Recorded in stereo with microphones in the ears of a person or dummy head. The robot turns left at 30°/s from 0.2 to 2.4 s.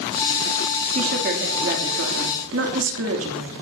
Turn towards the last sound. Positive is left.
turn(degrees=-95)